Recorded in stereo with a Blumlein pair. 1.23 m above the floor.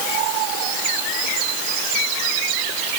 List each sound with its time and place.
Only background noise.